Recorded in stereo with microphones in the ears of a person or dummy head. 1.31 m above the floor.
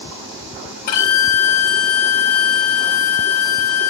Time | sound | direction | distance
0.9 | a violin | 50° left (ahead or behind) | 1.6 m